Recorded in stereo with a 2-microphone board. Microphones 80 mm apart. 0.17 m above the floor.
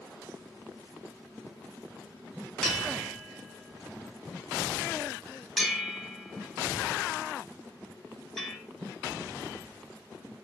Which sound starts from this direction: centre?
A bell, at 2.6 s.